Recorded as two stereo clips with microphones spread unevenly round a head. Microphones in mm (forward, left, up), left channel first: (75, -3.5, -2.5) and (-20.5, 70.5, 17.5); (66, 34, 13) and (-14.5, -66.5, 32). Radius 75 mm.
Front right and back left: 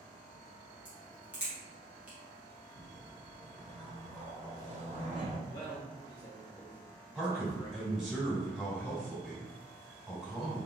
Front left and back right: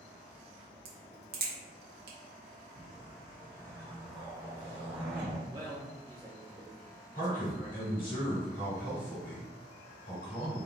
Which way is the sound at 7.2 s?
55° left.